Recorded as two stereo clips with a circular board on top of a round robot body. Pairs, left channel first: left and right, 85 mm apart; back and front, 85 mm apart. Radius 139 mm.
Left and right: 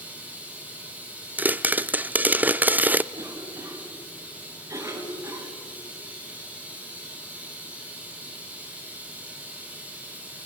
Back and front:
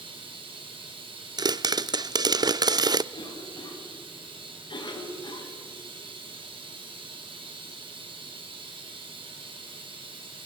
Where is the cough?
145° right, 4 m.